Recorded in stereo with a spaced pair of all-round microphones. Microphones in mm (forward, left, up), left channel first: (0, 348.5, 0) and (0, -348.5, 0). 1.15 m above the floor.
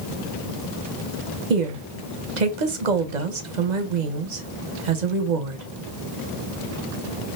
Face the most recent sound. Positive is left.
turn(degrees=-80)